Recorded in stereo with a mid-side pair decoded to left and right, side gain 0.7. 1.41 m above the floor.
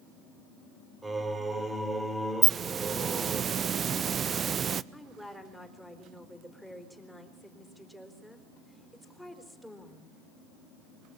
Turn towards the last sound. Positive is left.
turn(degrees=0)